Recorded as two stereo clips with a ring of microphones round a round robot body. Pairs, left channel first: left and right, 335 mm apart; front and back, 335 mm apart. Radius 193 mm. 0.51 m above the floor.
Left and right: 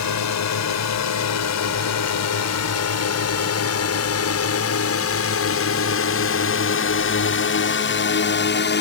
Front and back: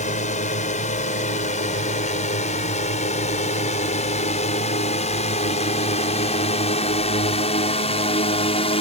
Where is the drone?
65° left; by 8.8 s 60° left.